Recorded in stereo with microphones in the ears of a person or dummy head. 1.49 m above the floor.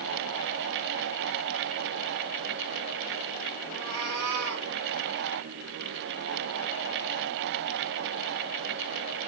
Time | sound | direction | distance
3.7 | a cat meowing | 75° right (ahead or behind) | 2.5 m